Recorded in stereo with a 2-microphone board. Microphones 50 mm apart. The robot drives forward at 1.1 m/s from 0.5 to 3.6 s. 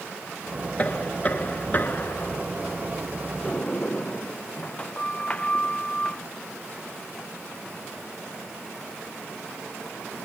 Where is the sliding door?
20° left (ahead or behind).